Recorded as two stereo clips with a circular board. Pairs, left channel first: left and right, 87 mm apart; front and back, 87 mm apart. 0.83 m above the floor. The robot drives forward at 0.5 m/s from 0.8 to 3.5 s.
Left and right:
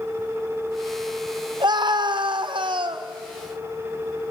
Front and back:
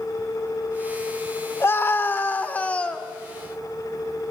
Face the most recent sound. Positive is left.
turn(degrees=-85)